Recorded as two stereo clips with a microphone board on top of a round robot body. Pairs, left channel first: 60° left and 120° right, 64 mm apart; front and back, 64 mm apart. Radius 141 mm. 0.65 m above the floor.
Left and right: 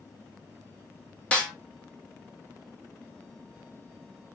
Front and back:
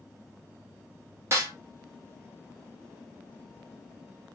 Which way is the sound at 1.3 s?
130° left.